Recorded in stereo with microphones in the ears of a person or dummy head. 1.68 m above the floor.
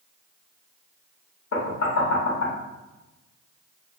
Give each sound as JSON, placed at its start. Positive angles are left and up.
{"t": 1.5, "sound": "knocking", "side_deg": 70, "distance_m": 0.9}